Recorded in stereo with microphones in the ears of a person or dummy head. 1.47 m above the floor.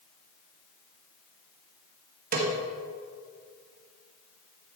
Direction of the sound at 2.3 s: 45° right (ahead or behind).